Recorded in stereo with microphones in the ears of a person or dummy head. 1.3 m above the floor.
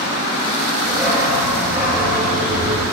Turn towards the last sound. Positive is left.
turn(degrees=-10)  # may be behind; listen again after turning